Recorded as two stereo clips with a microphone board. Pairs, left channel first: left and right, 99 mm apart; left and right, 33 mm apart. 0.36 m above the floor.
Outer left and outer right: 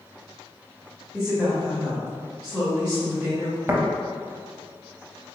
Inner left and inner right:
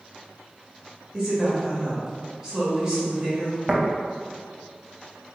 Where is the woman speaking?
10° right (ahead or behind), 1.1 m.